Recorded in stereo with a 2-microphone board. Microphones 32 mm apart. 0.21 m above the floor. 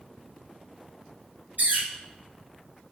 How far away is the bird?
About 1.2 m.